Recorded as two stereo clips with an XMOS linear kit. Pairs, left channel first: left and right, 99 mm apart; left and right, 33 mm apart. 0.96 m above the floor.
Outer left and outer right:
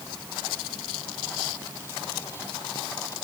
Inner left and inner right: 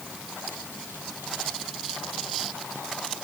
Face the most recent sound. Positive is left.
No sound to turn to.